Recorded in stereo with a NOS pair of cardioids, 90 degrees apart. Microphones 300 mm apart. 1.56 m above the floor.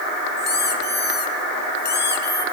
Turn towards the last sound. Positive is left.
turn(degrees=35)